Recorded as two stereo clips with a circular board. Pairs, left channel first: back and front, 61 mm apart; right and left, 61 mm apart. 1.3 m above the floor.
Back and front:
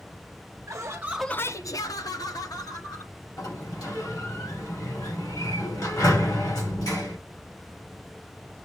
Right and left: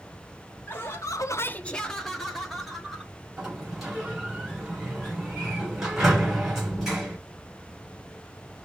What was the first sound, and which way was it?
Laughter, 35° right.